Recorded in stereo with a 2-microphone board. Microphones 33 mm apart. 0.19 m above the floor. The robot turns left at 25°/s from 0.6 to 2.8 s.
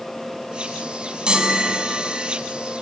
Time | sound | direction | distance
1.3 | a chime | 25° right (ahead or behind) | 1.8 m